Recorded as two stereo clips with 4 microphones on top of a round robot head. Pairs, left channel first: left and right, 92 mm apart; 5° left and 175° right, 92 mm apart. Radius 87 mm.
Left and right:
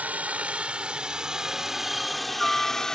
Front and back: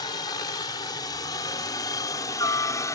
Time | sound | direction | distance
0.0 | a helicopter | 20° right | ?